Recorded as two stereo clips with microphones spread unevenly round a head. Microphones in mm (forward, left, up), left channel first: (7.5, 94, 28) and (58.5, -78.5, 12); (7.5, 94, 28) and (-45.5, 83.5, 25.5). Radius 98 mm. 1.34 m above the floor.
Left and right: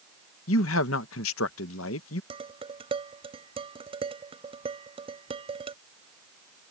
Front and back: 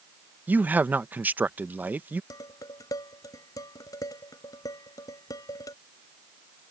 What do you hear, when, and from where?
0.5 s a man speaking: 135° left
2.3 s dishes clattering: 10° right